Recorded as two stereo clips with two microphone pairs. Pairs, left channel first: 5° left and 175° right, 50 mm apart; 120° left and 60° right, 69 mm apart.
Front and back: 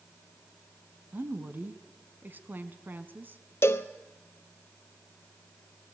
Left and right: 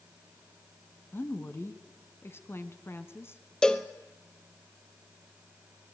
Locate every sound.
1.1 s a woman speaking: 155° left, 1.7 m
3.6 s a cowbell: 40° left, 1.1 m